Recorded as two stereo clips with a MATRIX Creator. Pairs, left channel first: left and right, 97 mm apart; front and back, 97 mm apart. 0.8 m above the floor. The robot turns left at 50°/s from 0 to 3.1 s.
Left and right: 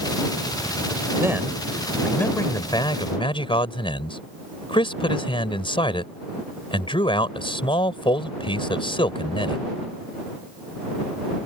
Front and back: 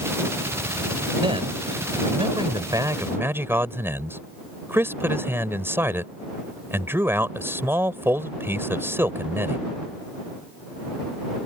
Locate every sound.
1.2 s a man speaking: 150° right; by 9.7 s 115° left